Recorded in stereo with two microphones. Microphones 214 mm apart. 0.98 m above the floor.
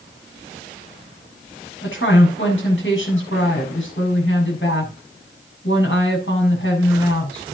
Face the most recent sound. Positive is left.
turn(degrees=65)  # may be behind; listen again after turning